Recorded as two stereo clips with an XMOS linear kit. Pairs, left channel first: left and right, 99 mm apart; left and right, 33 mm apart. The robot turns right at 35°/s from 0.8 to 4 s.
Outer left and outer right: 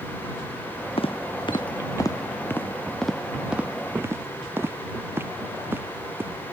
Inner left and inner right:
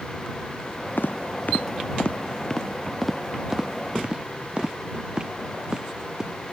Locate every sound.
1.0 s footsteps: 70° left (ahead or behind); by 6.4 s 20° right (ahead or behind)